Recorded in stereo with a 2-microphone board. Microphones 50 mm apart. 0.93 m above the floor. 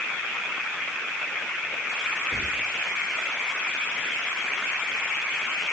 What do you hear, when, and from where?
2.3 s whispering: 20° right (ahead or behind), 2.5 m